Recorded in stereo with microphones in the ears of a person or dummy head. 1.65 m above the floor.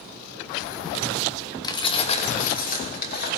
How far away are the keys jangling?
About 1.3 m.